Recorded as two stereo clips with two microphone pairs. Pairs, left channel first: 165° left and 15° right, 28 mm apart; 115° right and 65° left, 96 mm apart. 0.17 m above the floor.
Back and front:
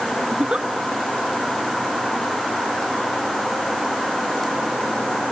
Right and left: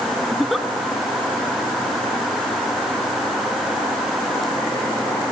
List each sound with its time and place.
0.3 s a giggle: 25° right, 0.9 m